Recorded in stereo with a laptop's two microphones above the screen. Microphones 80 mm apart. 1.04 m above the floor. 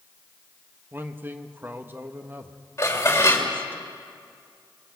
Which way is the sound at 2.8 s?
35° left (ahead or behind).